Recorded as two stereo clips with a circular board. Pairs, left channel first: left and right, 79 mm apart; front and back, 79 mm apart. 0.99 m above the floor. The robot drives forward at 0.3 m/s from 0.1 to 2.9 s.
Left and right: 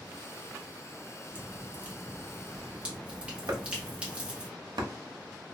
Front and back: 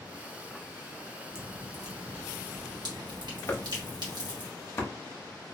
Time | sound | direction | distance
1.4 | dripping | 150° right | 0.8 m
3.5 | chopping | 55° right | 0.6 m